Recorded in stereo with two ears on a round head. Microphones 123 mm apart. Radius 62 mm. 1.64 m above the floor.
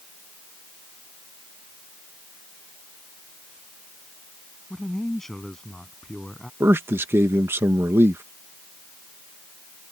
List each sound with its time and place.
4.7 s a man speaking: centre (ahead or behind)
6.6 s a man speaking: 20° right (ahead or behind)